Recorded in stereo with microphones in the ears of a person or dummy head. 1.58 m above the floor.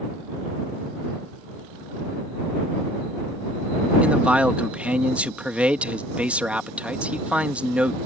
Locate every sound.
4.0 s a man speaking: centre (ahead or behind)